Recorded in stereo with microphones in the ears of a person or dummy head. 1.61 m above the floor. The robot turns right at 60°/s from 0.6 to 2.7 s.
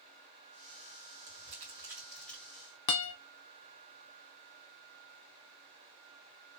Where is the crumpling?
45° right (ahead or behind), 2 m; by 2.5 s 15° left (ahead or behind), 2 m.